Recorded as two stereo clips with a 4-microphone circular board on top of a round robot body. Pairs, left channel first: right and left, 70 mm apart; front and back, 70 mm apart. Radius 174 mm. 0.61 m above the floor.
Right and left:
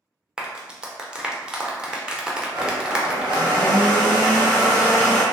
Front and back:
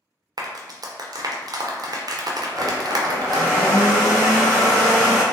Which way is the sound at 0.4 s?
170° left.